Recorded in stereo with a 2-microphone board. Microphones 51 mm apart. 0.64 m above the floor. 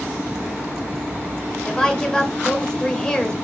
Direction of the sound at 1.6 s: 15° left (ahead or behind).